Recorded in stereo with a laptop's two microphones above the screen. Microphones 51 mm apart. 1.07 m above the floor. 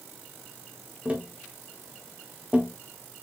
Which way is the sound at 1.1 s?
25° right (ahead or behind).